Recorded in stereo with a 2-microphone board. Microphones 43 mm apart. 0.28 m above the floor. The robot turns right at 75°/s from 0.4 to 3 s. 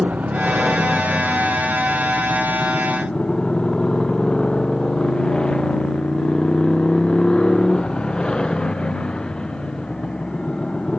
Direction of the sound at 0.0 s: 35° right.